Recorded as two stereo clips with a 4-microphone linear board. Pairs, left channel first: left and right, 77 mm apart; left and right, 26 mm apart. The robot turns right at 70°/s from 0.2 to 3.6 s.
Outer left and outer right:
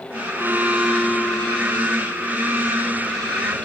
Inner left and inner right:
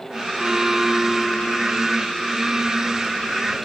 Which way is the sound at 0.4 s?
40° right.